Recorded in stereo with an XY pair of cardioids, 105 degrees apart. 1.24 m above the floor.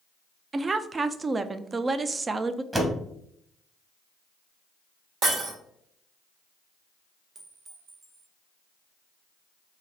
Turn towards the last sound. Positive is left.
turn(degrees=-35)